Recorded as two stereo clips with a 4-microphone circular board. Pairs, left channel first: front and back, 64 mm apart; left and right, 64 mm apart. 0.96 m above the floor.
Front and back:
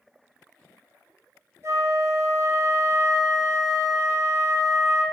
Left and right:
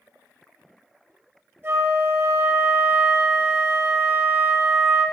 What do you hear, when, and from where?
1.6 s a flute: 140° right, 2.5 m